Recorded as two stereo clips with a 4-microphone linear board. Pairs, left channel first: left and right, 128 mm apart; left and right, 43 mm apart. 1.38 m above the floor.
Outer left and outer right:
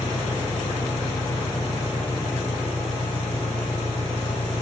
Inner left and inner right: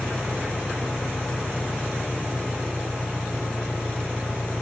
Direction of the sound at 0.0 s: 80° left.